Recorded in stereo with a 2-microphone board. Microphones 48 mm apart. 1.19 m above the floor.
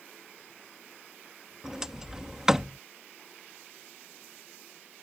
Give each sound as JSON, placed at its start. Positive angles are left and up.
{"t": 1.6, "sound": "a sliding door", "side_deg": -10}